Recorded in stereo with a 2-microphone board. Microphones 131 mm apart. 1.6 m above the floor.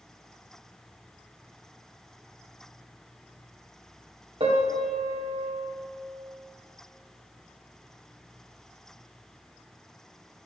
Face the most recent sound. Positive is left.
turn(degrees=-45)  # may be behind; listen again after turning